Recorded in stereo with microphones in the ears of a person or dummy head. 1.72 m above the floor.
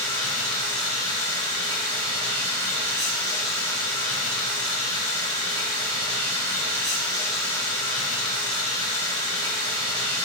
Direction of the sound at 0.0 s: 10° left (ahead or behind).